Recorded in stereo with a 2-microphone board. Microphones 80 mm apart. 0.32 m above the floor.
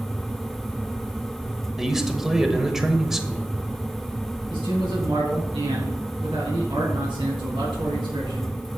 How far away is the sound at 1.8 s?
About 0.9 m.